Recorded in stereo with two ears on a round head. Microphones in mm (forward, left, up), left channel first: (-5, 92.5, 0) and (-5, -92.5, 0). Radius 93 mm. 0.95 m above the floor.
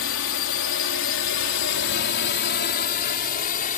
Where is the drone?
60° left (ahead or behind); by 3.8 s 40° left (ahead or behind).